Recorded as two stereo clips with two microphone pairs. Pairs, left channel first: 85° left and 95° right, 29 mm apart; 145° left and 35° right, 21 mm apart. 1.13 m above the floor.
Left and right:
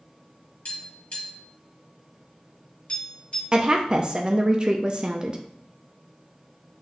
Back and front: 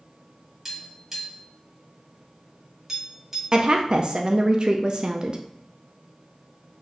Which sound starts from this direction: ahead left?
Tapping, at 0.7 s.